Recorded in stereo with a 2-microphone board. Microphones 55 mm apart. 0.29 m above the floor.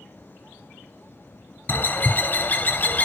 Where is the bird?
40° left (ahead or behind), 0.6 m.